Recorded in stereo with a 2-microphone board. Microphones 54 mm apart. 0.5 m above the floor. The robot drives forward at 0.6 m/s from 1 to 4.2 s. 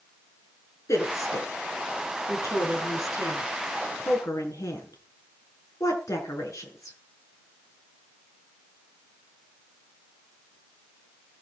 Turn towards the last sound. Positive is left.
turn(degrees=80)